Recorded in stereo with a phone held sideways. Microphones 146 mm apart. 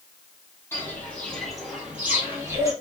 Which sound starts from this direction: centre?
Footsteps, at 0.7 s.